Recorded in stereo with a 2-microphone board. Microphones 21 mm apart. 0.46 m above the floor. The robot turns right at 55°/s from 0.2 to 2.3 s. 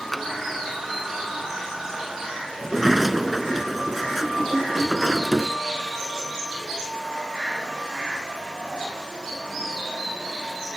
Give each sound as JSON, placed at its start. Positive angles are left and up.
{"t": 0.1, "sound": "tapping", "side_deg": 5}
{"t": 2.6, "sound": "a sliding door", "side_deg": -5}